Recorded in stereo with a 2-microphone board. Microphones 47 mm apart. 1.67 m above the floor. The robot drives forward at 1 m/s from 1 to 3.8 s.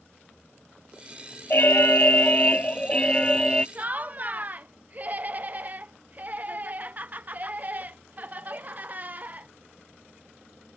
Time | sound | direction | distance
1.5 | an alarm | 50° left (ahead or behind) | ?
3.8 | laughter | 35° right (ahead or behind) | ?